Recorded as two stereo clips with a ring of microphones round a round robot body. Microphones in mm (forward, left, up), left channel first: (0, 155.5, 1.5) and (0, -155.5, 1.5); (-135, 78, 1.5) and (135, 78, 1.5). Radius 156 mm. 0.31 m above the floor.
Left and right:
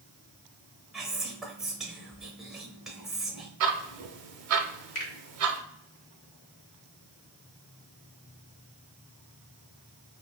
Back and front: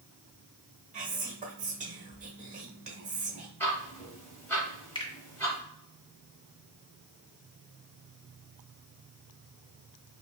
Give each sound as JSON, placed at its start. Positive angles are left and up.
{"t": 0.9, "sound": "whispering", "azimuth_deg": -5, "distance_m": 0.9}
{"t": 3.6, "sound": "ticking", "azimuth_deg": -100, "distance_m": 0.6}
{"t": 5.0, "sound": "a finger snap", "azimuth_deg": 115, "distance_m": 1.1}